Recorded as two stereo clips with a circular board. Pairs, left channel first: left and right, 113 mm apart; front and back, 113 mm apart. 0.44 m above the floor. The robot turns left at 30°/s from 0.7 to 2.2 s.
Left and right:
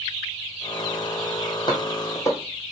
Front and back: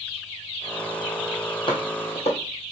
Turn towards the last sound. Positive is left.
turn(degrees=25)